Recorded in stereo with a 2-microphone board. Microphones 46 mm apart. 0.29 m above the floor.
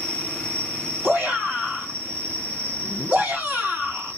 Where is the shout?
40° right (ahead or behind), 2.5 m.